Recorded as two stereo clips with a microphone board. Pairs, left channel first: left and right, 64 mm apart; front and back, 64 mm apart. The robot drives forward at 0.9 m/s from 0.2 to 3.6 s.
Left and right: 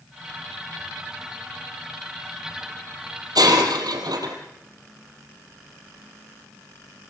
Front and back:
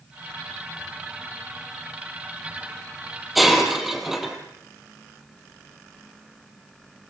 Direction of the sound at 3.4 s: 90° right.